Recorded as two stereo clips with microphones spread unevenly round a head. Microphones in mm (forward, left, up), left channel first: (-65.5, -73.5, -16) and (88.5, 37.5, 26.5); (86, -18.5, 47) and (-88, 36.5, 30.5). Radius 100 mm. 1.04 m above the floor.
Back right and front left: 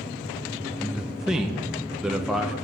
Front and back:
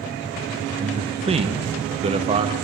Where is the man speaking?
135° left, 0.6 m.